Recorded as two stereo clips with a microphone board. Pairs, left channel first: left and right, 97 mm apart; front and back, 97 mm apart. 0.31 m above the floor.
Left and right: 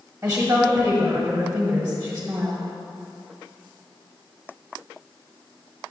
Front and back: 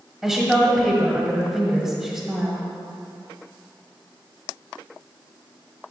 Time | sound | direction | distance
0.2 | a woman speaking | 110° right | 1.3 m